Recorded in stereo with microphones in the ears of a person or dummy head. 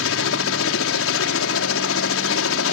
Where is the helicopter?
65° left (ahead or behind).